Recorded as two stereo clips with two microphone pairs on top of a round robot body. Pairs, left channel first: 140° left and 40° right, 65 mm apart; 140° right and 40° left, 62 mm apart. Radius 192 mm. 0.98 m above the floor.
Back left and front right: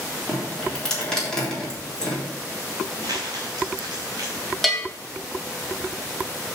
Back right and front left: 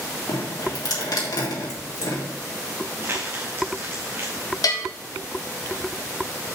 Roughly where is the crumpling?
Ahead.